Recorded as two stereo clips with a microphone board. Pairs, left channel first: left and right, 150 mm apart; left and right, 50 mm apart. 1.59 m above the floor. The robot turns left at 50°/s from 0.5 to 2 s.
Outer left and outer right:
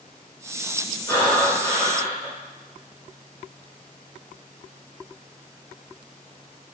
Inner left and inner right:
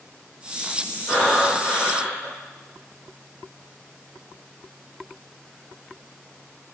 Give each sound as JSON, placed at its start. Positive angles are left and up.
{"t": 1.1, "sound": "breathing", "azimuth_deg": 85, "distance_m": 1.4}